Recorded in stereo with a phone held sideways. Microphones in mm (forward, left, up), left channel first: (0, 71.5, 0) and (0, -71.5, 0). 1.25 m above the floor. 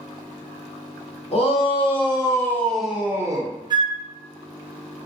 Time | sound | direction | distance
1.3 | a shout | 45° left (ahead or behind) | 1.1 m
3.7 | a flute | 30° right (ahead or behind) | 0.8 m